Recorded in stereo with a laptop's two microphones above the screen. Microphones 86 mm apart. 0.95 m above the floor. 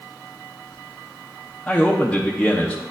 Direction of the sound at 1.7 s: 10° left (ahead or behind).